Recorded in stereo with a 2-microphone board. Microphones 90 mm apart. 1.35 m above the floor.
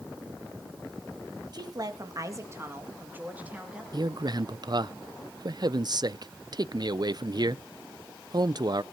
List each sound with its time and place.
1.5 s a woman speaking: 50° right (ahead or behind), 2 m; by 3.8 s 10° right (ahead or behind), 2.5 m
3.9 s a man speaking: 50° right (ahead or behind), 0.5 m